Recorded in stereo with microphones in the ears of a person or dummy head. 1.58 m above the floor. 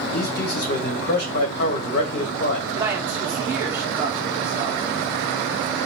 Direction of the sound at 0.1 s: 60° left (ahead or behind).